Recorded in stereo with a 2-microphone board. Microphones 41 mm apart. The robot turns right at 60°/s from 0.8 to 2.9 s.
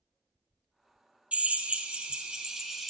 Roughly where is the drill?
Right.